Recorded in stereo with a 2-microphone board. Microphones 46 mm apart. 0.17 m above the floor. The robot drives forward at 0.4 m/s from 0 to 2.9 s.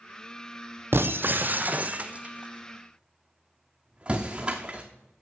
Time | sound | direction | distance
0.9 | breaking glass | 65° right (ahead or behind) | 0.6 m